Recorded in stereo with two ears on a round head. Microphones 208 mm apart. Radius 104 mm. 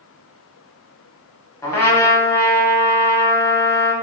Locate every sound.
1.6 s a trumpet: 10° left (ahead or behind), 0.8 m